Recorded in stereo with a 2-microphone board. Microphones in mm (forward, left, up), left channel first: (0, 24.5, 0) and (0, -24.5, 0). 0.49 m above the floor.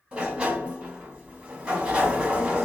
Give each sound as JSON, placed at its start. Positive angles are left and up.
{"t": 0.1, "sound": "a sliding door", "side_deg": -25, "distance_m": 1.4}